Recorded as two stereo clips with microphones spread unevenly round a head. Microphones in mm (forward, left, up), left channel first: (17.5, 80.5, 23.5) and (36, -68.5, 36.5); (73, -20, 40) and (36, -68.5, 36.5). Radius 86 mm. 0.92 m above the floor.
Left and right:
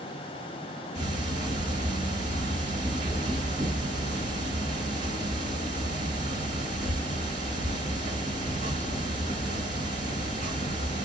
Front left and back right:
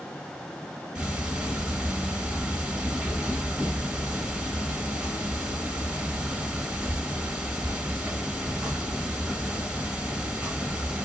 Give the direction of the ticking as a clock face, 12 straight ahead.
2 o'clock.